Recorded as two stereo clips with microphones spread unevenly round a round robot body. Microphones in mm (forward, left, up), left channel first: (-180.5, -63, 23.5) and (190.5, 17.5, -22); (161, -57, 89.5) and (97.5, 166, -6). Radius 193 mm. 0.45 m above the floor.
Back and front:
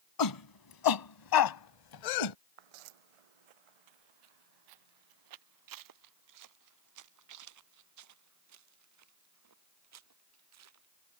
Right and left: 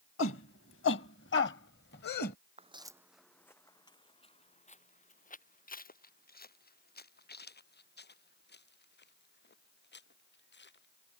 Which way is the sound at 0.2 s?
130° right.